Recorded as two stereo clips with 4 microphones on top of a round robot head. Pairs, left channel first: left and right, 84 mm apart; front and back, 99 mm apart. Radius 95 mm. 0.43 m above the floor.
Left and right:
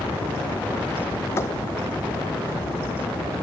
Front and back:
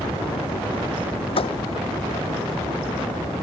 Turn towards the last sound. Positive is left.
turn(degrees=25)